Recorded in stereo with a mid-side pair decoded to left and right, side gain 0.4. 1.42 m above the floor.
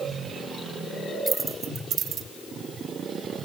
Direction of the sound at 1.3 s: 30° right.